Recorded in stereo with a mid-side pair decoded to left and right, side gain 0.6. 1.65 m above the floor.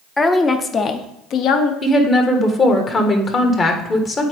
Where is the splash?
No splash in this recording.